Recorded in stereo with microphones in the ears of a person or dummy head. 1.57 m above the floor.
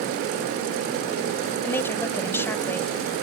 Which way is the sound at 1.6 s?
15° left (ahead or behind).